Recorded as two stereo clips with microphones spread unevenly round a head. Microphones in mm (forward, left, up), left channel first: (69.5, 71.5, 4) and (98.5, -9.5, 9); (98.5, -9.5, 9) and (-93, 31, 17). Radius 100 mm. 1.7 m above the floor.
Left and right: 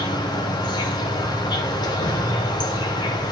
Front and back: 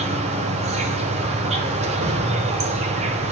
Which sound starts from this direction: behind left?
An insect, at 0.0 s.